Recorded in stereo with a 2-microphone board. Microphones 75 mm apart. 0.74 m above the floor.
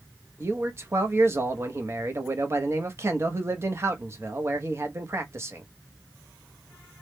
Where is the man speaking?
40° right (ahead or behind), 0.7 m.